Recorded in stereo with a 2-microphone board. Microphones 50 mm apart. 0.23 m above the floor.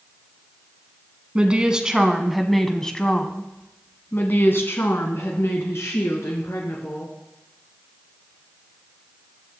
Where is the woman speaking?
20° right (ahead or behind), 1.7 m; by 7.1 s 70° left (ahead or behind), 3 m.